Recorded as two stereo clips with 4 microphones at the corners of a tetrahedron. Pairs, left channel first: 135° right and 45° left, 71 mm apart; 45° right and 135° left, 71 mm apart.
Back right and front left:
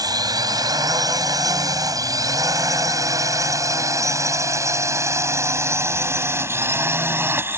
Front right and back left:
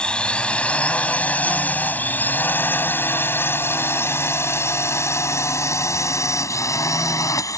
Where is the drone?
30° left; by 7.6 s 10° right.